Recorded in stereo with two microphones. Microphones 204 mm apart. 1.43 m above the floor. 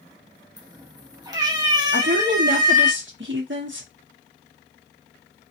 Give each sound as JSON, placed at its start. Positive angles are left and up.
{"t": 0.6, "sound": "a cat meowing", "side_deg": -20, "distance_m": 0.7}
{"t": 1.9, "sound": "a woman speaking", "side_deg": -70, "distance_m": 0.9}